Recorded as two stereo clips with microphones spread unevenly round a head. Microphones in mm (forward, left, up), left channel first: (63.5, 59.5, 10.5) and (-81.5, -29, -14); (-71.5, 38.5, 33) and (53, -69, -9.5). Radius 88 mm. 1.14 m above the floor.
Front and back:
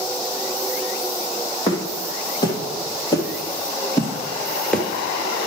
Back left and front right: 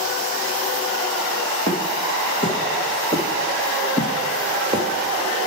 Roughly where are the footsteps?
Left.